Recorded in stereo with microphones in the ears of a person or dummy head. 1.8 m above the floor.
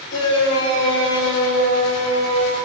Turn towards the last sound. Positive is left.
turn(degrees=80)